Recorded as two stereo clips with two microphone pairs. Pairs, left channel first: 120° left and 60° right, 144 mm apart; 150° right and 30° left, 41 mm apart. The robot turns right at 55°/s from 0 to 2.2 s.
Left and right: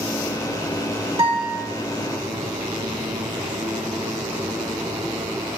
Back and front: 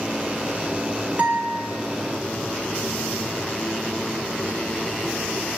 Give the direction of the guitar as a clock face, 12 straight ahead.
12 o'clock.